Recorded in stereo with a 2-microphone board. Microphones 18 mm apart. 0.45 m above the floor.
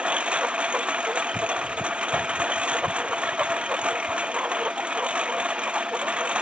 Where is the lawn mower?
75° right (ahead or behind).